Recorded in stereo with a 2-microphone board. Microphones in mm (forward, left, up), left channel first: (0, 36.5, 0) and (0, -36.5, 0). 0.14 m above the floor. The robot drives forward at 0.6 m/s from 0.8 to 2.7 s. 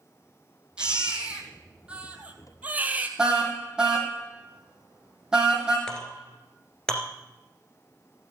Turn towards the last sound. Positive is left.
turn(degrees=10)  # may be behind; listen again after turning